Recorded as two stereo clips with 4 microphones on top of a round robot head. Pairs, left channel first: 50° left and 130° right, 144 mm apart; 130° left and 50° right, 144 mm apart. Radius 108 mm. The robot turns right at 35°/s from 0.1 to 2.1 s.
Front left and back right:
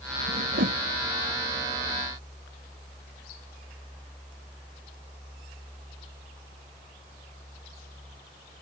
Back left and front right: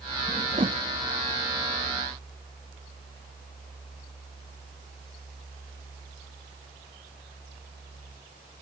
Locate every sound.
0.3 s a whoosh: 120° right; by 0.8 s 100° right